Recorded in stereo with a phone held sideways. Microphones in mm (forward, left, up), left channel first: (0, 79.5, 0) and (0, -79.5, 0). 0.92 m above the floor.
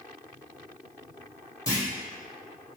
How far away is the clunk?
About 0.8 m.